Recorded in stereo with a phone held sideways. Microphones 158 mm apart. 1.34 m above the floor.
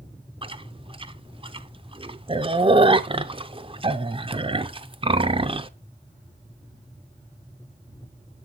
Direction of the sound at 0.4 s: 35° right (ahead or behind).